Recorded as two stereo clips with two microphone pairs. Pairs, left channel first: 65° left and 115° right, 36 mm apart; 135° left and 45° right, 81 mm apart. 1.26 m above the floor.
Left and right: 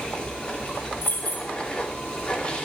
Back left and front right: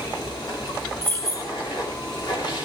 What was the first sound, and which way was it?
Running water, 130° left.